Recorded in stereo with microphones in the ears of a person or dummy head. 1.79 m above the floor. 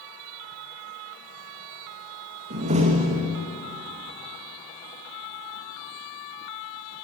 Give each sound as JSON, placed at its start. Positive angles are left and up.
{"t": 2.5, "sound": "a door slam", "side_deg": -35, "distance_m": 2.0}